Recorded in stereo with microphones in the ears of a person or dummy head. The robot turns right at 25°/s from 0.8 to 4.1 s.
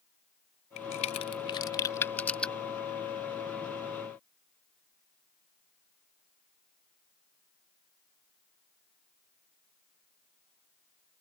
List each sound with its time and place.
0.8 s a crack: 40° left (ahead or behind); by 2.5 s centre (ahead or behind)